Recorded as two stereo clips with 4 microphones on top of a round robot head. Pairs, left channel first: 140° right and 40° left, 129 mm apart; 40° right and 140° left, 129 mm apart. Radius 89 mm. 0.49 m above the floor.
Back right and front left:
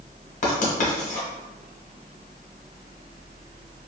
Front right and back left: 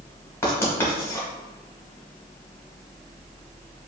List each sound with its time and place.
0.4 s writing: 110° right, 1.1 m